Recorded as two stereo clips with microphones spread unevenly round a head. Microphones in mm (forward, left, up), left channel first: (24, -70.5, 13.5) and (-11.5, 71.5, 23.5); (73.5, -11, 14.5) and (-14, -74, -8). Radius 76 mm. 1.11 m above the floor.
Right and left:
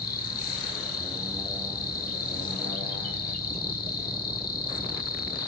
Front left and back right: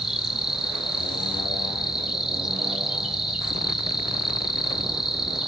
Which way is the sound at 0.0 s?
60° right.